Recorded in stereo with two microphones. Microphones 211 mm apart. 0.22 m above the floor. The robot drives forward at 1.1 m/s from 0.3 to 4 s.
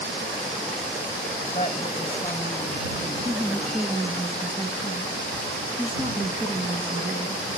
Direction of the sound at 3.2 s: 35° right (ahead or behind).